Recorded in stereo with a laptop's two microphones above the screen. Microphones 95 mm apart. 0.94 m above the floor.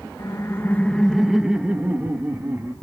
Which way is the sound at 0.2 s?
40° left (ahead or behind).